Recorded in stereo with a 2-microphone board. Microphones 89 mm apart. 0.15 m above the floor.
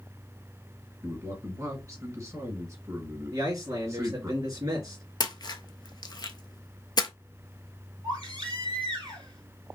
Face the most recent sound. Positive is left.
turn(degrees=-65)  # may be behind; listen again after turning